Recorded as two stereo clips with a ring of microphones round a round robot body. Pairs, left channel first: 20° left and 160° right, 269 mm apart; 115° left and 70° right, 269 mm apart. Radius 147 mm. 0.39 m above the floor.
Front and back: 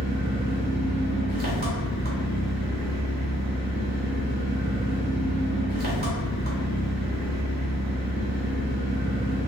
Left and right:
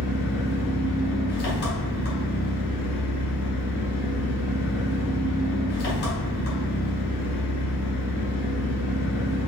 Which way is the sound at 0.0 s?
155° left.